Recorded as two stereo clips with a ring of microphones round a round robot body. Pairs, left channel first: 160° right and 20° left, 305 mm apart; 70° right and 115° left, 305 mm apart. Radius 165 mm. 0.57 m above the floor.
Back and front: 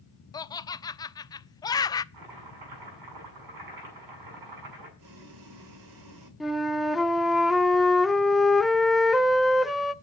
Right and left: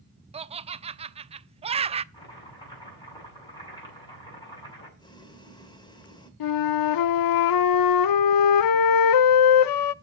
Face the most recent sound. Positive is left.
turn(degrees=-65)